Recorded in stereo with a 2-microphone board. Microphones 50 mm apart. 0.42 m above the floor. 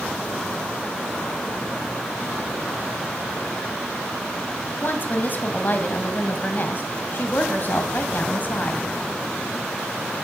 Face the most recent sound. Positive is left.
turn(degrees=40)  # may be behind; listen again after turning